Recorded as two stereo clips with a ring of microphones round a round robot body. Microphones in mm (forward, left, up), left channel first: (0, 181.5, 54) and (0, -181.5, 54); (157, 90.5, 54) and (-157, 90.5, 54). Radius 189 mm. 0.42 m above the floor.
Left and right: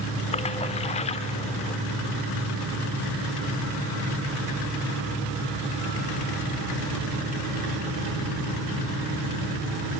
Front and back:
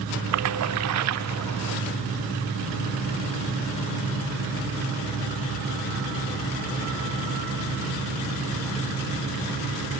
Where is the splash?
160° left, 0.6 m.